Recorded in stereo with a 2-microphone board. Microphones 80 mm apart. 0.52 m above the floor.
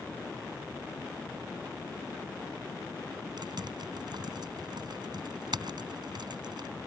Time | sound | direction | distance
3.4 | typing on a keyboard | 70° right (ahead or behind) | ?